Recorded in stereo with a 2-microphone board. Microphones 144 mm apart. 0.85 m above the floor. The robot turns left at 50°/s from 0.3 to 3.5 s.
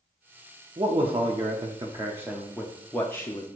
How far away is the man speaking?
About 0.6 m.